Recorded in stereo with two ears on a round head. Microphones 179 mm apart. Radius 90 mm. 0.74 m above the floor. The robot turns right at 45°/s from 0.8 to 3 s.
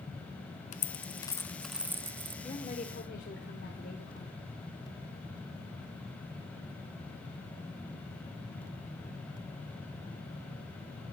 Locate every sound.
0.7 s a dropped coin: 40° left (ahead or behind), 1.0 m; by 2.3 s 30° right (ahead or behind), 1.0 m
2.4 s a woman speaking: 20° left (ahead or behind), 2.5 m; by 4.4 s 45° left (ahead or behind), 2.5 m